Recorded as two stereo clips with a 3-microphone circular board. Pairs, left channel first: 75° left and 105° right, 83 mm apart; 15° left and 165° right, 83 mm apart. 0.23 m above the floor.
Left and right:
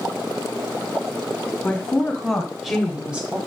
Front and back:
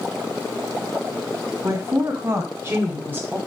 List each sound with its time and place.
1.6 s a woman speaking: 150° left, 2.5 m; by 3.4 s 145° right, 1.6 m